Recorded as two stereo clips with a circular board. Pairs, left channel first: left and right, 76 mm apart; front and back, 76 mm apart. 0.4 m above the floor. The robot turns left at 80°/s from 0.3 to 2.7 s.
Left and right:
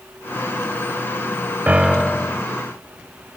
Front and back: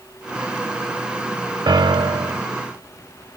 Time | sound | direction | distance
1.7 | a piano | 155° right | ?